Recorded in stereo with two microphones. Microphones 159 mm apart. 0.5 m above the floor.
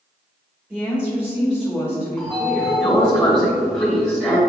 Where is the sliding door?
5° left (ahead or behind), 1.9 m.